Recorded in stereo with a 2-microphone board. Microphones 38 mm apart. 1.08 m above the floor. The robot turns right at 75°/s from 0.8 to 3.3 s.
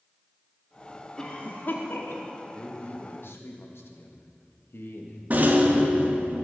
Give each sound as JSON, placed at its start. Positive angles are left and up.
{"t": 1.2, "sound": "a cough", "side_deg": 15, "distance_m": 2.0}
{"t": 2.5, "sound": "a man speaking", "azimuth_deg": 25, "distance_m": 1.7}
{"t": 5.3, "sound": "a rattle", "side_deg": -45, "distance_m": 1.3}